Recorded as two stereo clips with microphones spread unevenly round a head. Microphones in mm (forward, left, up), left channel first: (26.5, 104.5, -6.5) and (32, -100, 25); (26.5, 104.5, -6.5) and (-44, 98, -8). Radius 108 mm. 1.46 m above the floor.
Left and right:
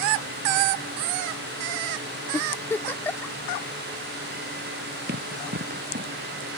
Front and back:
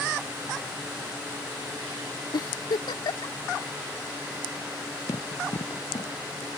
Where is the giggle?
10° left.